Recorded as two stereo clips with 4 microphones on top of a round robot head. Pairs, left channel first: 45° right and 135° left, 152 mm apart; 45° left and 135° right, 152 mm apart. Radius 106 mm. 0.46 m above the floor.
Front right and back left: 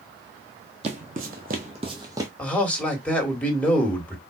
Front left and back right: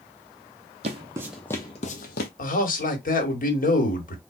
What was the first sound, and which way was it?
Footsteps, straight behind.